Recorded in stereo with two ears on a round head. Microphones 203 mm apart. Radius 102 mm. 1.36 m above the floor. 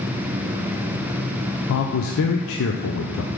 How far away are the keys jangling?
No keys jangling in this recording.